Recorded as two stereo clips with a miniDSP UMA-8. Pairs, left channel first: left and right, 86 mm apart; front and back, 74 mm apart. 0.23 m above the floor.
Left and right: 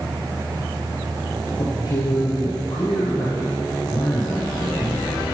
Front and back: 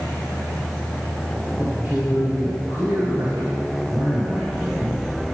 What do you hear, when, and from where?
1.6 s a man speaking: 115° left, 4 m